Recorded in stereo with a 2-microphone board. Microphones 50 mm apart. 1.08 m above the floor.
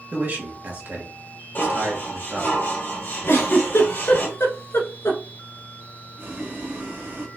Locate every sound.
0.1 s a man speaking: 35° right (ahead or behind), 1.5 m
1.6 s dishes clattering: 40° left (ahead or behind), 2.5 m
3.3 s a giggle: 55° left (ahead or behind), 1.4 m
6.2 s boiling: 40° right (ahead or behind), 1.3 m